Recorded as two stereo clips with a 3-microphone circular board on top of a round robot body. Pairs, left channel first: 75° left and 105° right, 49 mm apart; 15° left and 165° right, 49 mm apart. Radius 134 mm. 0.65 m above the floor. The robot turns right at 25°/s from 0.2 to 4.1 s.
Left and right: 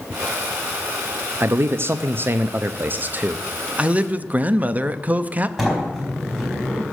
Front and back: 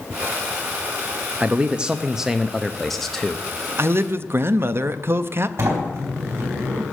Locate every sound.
1.4 s a man speaking: 110° right, 0.7 m; by 3.5 s 60° right, 0.7 m
3.8 s a man speaking: 160° right, 0.8 m; by 5.5 s 155° right, 0.8 m
5.6 s a sliding door: 175° left, 4 m